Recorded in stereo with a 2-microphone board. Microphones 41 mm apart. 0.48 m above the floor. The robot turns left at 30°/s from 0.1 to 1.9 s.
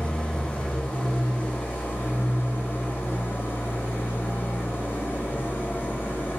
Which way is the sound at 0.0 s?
155° left.